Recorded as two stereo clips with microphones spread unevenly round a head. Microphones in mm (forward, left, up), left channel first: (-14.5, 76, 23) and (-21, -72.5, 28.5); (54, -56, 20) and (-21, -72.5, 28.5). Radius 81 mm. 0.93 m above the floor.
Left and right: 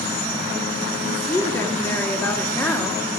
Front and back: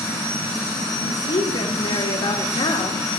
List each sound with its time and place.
1.0 s a woman speaking: 10° left, 2 m